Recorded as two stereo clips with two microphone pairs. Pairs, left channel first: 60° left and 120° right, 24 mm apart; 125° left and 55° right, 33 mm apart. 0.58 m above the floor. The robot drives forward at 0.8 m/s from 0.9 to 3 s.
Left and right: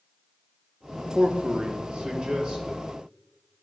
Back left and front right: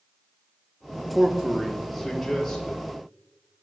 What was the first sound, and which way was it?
A man speaking, 110° right.